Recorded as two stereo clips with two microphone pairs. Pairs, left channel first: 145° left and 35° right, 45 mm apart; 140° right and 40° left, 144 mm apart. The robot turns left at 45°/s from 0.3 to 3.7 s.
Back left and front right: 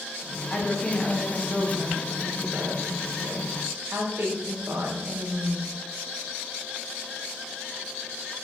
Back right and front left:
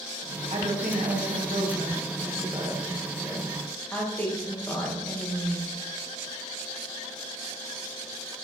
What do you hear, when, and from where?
0.5 s a woman speaking: 85° left, 1.9 m; by 5.7 s 60° right, 1.9 m